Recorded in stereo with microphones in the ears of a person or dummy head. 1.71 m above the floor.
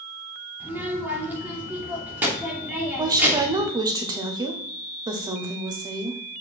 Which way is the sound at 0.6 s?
10° right (ahead or behind).